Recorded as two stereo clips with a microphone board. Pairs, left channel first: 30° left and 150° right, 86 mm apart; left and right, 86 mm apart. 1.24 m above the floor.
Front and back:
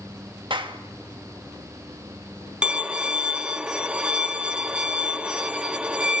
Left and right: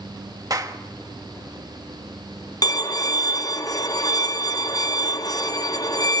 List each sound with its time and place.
0.5 s a clap: 135° right, 1.2 m
2.6 s a violin: 130° left, 0.8 m